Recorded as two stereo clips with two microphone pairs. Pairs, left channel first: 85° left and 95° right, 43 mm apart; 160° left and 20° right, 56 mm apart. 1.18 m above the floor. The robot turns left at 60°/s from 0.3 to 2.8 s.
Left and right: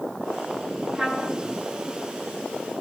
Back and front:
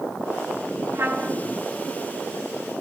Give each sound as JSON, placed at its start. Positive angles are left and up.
{"t": 0.9, "sound": "a trumpet", "azimuth_deg": -25, "distance_m": 0.9}